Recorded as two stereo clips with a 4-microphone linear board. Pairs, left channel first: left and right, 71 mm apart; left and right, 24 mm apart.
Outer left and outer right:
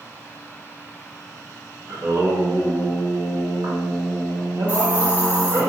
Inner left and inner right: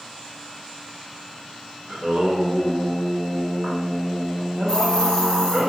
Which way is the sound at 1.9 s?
50° right (ahead or behind).